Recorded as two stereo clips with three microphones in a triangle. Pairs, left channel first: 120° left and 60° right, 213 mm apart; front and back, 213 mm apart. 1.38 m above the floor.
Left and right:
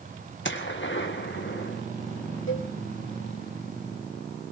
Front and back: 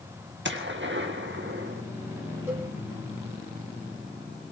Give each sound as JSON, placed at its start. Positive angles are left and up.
{"t": 0.5, "sound": "a gunshot", "azimuth_deg": 150, "distance_m": 1.7}
{"t": 2.5, "sound": "a cowbell", "azimuth_deg": 100, "distance_m": 3.0}